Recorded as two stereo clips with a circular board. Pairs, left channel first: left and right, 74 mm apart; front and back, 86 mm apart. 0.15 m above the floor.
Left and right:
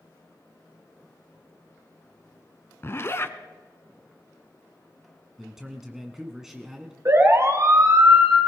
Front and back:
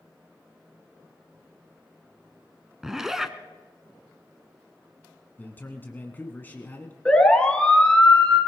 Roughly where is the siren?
Right.